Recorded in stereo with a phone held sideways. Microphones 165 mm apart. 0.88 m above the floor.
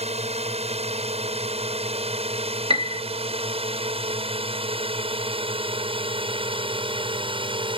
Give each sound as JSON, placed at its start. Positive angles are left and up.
{"t": 0.0, "sound": "a drone", "side_deg": -40}
{"t": 2.7, "sound": "a piano", "side_deg": -35}